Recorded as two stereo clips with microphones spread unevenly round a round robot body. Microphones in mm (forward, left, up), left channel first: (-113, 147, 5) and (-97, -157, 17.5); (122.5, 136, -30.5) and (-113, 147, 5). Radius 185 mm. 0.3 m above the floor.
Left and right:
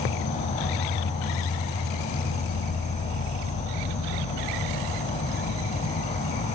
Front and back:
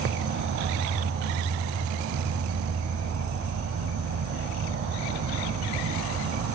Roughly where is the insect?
Behind.